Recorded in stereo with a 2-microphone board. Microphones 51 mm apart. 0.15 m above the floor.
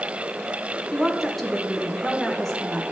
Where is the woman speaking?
5° left (ahead or behind), 1.3 m.